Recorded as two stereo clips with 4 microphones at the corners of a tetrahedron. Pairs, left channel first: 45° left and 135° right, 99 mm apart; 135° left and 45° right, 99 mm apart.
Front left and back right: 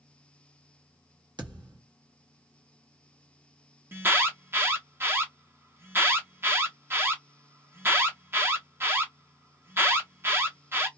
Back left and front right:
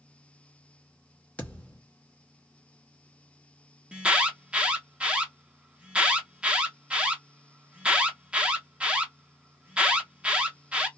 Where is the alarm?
105° right, 0.6 m.